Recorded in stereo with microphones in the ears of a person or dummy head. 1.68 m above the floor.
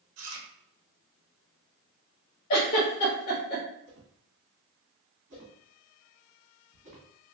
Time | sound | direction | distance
0.2 | chewing | 80° right | 0.8 m
2.5 | a giggle | 25° left (ahead or behind) | 1.1 m
3.9 | a whoosh | 40° right (ahead or behind) | 1.4 m